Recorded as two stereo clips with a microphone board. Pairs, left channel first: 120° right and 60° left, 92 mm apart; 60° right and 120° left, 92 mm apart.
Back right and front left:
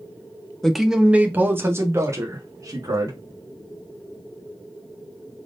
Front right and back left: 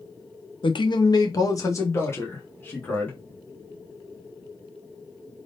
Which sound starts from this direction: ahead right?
A man speaking, at 0.6 s.